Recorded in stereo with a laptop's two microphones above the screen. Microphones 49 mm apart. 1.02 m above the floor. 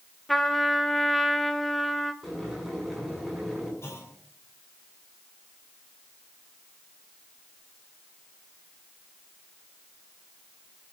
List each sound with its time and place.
0.3 s a trumpet: 5° left (ahead or behind), 0.8 m
2.2 s boiling: 5° left (ahead or behind), 7 m
3.8 s a clunk: 70° left (ahead or behind), 5 m